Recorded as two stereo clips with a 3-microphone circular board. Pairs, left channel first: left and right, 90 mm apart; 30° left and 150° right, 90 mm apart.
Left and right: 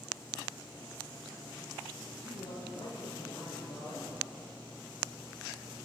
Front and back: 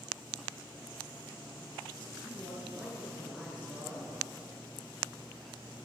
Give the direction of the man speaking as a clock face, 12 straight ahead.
8 o'clock.